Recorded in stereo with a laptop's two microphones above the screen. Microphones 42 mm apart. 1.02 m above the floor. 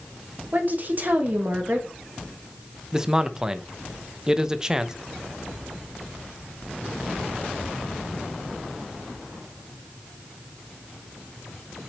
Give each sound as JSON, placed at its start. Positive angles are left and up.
{"t": 0.5, "sound": "a woman speaking", "side_deg": -50, "distance_m": 1.5}
{"t": 2.9, "sound": "a man speaking", "side_deg": -15, "distance_m": 0.6}